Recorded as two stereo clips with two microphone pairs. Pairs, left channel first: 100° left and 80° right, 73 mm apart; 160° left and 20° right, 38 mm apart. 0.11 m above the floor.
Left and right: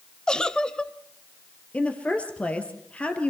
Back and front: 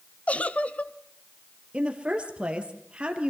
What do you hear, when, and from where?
0.3 s a giggle: 170° left, 0.6 m
1.7 s a woman speaking: 35° left, 2 m